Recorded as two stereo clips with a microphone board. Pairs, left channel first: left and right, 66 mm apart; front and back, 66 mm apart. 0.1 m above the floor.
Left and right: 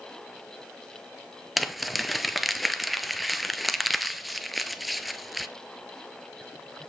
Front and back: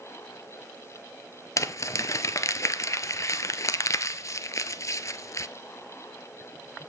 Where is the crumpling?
Straight ahead, 0.7 m.